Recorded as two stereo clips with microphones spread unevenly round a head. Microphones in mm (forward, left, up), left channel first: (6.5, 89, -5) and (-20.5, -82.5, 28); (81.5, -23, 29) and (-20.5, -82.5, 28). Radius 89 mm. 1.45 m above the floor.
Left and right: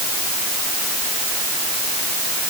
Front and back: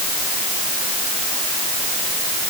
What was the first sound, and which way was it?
Only background noise.